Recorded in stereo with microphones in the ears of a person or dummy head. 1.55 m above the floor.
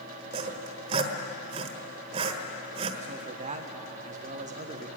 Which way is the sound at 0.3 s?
40° right (ahead or behind).